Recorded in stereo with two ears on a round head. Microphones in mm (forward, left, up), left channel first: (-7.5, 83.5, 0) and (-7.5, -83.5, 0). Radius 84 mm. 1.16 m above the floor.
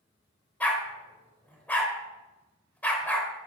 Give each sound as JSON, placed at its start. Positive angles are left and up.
{"t": 0.6, "sound": "a dog barking", "side_deg": 10, "distance_m": 1.8}